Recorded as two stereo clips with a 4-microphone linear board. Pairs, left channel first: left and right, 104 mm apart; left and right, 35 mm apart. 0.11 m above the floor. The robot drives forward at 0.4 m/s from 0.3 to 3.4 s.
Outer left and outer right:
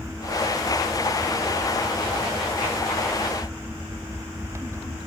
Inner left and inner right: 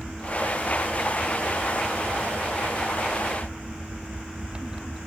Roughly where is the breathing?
I don't hear breathing.